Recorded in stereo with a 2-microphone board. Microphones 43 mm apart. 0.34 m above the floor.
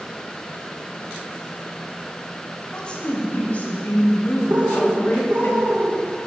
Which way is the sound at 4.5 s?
40° right (ahead or behind).